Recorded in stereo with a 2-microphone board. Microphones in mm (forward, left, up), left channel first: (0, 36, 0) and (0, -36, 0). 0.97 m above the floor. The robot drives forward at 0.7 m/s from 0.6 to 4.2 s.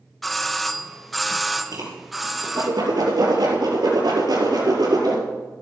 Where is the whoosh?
65° right (ahead or behind), 4.5 m; by 5.2 s 80° right, 4 m.